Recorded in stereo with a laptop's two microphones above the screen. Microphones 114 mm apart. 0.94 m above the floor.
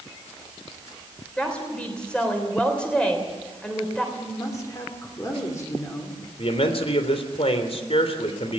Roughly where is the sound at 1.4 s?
Centre.